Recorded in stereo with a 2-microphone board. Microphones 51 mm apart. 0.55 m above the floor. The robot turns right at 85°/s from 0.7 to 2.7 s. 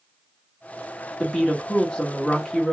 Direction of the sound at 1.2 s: 15° left (ahead or behind).